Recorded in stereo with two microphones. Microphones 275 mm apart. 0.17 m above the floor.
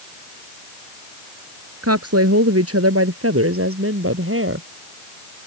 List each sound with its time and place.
1.8 s a woman speaking: 60° right (ahead or behind); by 4.7 s 50° right (ahead or behind)